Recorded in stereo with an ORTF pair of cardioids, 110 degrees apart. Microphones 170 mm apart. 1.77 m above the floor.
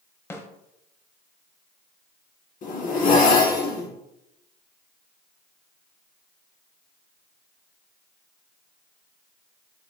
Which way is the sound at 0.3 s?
15° left.